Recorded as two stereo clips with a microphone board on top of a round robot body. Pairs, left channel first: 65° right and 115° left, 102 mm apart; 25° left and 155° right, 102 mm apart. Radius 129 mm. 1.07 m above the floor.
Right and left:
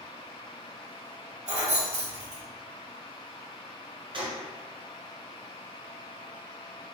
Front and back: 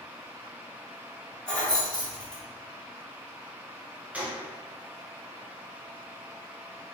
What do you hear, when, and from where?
1.5 s keys jangling: 105° left, 1.0 m
4.1 s a gunshot: 130° left, 0.8 m